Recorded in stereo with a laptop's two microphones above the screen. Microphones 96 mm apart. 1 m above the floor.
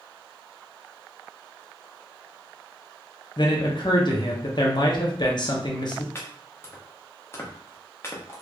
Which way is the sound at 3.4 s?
50° left (ahead or behind).